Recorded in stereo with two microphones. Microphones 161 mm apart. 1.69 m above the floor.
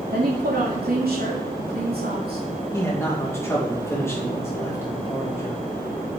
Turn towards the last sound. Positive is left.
turn(degrees=15)  # may be behind; listen again after turning